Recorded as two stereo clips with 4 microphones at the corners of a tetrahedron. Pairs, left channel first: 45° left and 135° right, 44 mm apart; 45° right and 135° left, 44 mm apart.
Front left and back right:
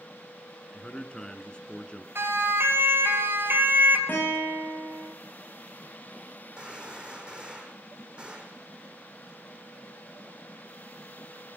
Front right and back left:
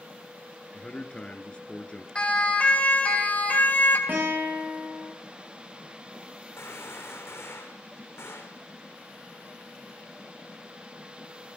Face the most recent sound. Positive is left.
turn(degrees=-65)